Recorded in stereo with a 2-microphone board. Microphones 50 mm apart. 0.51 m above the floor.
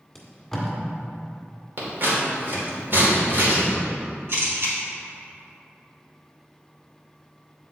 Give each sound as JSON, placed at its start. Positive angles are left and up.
{"t": 0.1, "sound": "tape being pulled", "side_deg": 5, "distance_m": 1.7}
{"t": 1.8, "sound": "scissors", "side_deg": -50, "distance_m": 2.0}
{"t": 4.3, "sound": "a camera shutter", "side_deg": -60, "distance_m": 2.0}